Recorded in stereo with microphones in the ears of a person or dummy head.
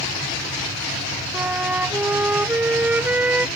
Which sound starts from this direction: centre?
A flute, at 1.3 s.